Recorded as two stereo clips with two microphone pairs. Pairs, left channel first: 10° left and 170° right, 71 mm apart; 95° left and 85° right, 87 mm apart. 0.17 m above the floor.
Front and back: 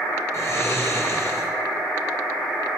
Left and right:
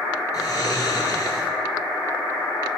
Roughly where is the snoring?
Ahead left.